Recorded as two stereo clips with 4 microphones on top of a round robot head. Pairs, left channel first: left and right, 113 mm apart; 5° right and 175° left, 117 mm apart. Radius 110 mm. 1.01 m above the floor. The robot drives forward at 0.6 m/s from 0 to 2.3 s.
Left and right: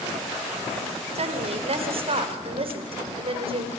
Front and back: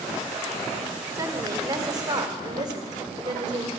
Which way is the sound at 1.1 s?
120° right.